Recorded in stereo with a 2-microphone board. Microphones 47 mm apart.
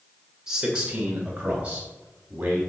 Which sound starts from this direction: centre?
A man speaking, at 0.5 s.